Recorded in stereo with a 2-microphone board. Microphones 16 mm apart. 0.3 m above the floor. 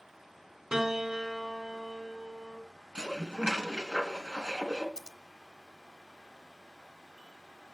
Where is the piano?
30° right (ahead or behind), 2.5 m.